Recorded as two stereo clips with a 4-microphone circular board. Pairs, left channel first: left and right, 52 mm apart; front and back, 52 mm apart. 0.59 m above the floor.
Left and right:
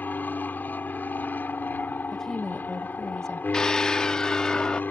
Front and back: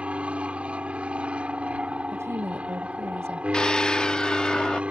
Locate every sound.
0.0 s an aircraft: 125° left
2.1 s a woman speaking: 170° left
3.5 s a scream: 40° left